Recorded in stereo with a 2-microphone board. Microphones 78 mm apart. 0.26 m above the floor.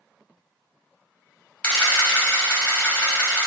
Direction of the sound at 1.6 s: 20° left (ahead or behind).